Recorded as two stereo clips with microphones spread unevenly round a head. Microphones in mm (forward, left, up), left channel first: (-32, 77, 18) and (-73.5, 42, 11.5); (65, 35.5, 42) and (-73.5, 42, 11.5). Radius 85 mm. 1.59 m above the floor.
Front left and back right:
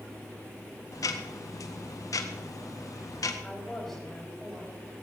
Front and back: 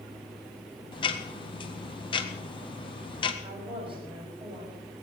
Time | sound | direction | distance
0.9 | ticking | 50° left | 1.6 m
3.4 | a woman speaking | 120° left | 7 m